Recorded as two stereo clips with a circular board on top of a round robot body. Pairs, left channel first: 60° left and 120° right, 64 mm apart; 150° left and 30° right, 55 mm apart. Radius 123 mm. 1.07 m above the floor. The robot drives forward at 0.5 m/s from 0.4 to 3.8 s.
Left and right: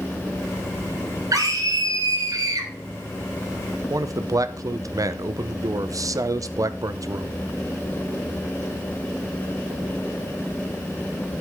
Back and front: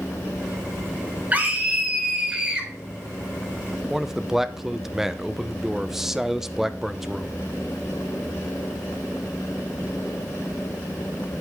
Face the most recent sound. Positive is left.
turn(degrees=-110)